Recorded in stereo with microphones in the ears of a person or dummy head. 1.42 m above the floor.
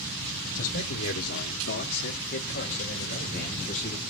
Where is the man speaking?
55° left (ahead or behind), 1.1 m; by 4.0 s 40° left (ahead or behind), 3 m.